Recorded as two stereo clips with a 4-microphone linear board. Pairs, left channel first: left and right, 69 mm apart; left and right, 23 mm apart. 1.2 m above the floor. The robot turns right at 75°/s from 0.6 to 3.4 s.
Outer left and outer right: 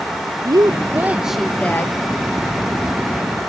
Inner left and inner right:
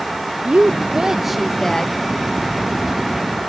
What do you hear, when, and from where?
0.5 s a woman speaking: 60° right, 0.8 m; by 1.9 s 40° left, 0.8 m